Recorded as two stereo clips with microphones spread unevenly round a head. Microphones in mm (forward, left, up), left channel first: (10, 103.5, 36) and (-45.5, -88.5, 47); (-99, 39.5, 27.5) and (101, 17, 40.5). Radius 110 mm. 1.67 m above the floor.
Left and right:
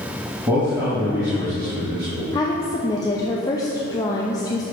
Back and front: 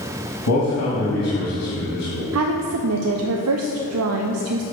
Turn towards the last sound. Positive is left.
turn(degrees=0)